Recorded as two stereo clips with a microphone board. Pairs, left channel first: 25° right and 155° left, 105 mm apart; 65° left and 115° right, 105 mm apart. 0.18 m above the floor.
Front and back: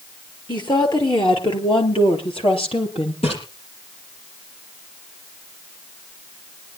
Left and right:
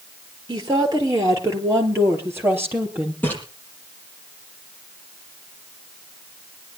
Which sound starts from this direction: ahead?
A splash, at 3.2 s.